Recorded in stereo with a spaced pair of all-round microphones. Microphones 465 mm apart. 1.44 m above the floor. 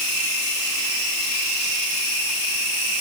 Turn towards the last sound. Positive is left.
No sound to turn to.